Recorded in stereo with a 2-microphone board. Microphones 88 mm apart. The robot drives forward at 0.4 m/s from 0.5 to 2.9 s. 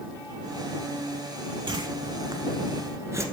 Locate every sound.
1.7 s a whoosh: 55° right (ahead or behind), 0.6 m; by 3.2 s 35° right (ahead or behind), 1.0 m